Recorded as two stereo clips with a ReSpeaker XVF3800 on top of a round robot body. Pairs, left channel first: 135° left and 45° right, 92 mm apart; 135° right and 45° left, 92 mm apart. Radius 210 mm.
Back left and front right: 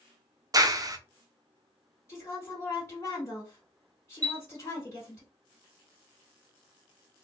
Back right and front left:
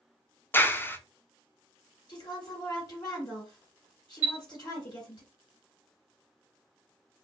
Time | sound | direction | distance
0.5 | a clap | 75° right | 0.7 m
2.1 | a woman speaking | 170° right | 2 m
4.2 | a chime | 20° right | 1.6 m